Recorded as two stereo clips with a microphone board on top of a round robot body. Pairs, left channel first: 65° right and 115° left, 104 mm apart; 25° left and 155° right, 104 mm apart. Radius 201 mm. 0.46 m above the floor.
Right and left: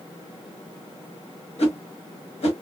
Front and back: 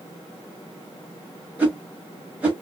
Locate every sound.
1.6 s a whoosh: 80° right, 1.6 m